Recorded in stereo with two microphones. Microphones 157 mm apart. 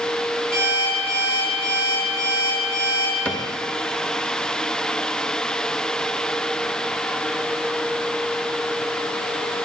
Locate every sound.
0.5 s an alarm clock: 60° right (ahead or behind), 4.5 m
3.2 s a cupboard door: 10° left (ahead or behind), 0.8 m